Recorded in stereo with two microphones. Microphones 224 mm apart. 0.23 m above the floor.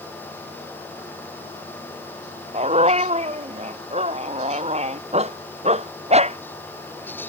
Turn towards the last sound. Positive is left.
turn(degrees=-30)  # may be behind; listen again after turning